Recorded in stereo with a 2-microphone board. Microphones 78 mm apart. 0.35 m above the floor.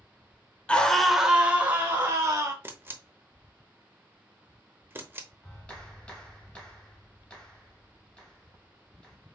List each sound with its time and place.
0.7 s a scream: 15° left (ahead or behind), 0.8 m; by 2.5 s 30° right (ahead or behind), 1.7 m
2.6 s a camera shutter: 25° right (ahead or behind), 0.8 m
5.4 s a clap: 15° left (ahead or behind), 1.9 m